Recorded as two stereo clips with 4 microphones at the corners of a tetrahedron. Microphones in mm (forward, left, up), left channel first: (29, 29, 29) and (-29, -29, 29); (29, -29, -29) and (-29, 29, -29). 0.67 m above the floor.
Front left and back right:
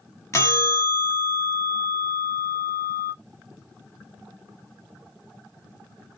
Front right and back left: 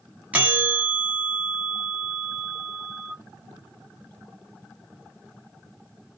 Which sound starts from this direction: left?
A bell, at 0.3 s.